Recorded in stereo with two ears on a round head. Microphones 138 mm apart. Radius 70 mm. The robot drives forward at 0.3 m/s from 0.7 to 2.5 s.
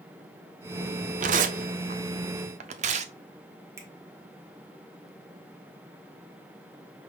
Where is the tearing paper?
50° right (ahead or behind), 0.6 m; by 3.1 s 45° right (ahead or behind), 0.6 m.